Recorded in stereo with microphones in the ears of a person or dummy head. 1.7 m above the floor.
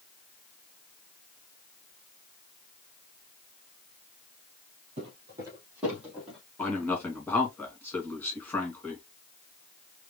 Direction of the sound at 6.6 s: 10° left (ahead or behind).